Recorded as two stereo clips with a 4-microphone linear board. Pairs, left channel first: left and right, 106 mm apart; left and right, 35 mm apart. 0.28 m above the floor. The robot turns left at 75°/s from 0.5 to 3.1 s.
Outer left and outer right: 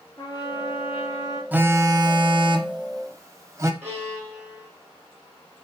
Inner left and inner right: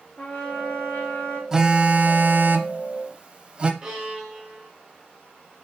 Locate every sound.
0.2 s a trumpet: 140° left, 2.5 m; by 1.4 s 70° left, 2.5 m
1.5 s a phone buzzing: 20° right, 0.6 m; by 3.7 s 140° right, 0.6 m
3.8 s a violin: 25° right (ahead or behind), 3 m